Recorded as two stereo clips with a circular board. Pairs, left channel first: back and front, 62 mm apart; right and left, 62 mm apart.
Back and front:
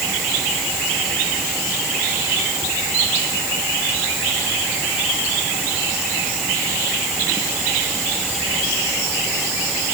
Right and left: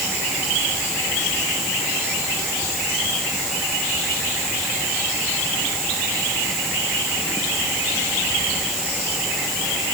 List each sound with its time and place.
Only background noise.